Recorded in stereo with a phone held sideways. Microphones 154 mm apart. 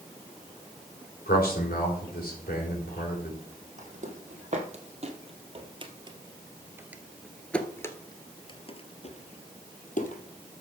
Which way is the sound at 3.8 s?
55° right (ahead or behind).